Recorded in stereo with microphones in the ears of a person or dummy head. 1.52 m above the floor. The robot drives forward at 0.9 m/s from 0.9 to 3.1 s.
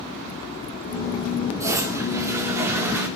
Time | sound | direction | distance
1.6 | a toilet flushing | 15° right (ahead or behind) | 3.5 m